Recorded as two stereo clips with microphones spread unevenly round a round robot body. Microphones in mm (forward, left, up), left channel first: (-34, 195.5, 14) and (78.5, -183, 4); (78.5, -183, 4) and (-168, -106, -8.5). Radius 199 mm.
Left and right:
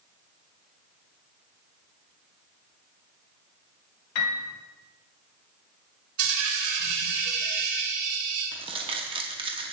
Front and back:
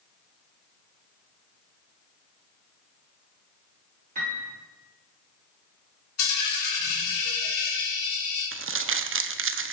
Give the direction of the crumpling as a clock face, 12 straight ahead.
5 o'clock.